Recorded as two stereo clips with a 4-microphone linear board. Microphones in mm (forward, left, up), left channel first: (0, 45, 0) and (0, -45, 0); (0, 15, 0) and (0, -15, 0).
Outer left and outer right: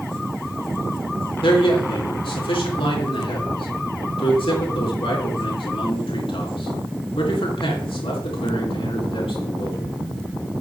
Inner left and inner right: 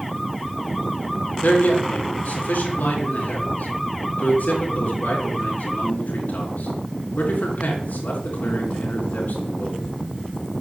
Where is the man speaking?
70° left (ahead or behind), 4 m.